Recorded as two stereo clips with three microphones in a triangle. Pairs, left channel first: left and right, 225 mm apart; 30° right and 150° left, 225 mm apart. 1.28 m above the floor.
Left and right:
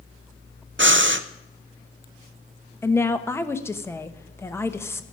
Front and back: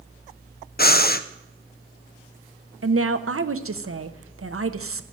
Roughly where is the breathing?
Right.